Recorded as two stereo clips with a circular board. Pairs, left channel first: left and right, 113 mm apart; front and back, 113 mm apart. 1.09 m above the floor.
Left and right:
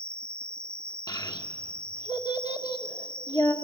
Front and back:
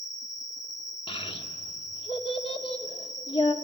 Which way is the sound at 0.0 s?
130° left.